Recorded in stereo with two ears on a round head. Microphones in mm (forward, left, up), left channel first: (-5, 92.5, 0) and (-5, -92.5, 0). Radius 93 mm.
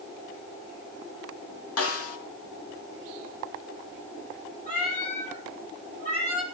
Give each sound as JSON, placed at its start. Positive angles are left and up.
{"t": 1.8, "sound": "a snare drum", "side_deg": 80, "distance_m": 3.0}
{"t": 4.7, "sound": "a cat meowing", "side_deg": 40, "distance_m": 6.5}